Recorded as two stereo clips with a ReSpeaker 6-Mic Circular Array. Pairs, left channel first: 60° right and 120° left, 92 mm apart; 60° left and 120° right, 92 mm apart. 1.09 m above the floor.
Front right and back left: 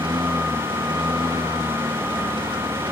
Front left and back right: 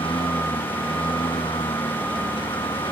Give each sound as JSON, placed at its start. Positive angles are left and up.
{"t": 0.0, "sound": "a lawn mower", "azimuth_deg": 85}